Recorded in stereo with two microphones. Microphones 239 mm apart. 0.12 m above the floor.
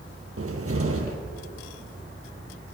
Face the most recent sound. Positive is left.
turn(degrees=-65)  # may be behind; listen again after turning